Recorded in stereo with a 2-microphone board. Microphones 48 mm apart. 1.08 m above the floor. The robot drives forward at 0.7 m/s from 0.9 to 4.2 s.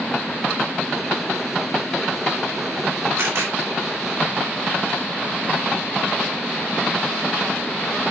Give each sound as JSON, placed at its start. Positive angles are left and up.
{"t": 3.2, "sound": "a camera shutter", "side_deg": -70, "distance_m": 4.0}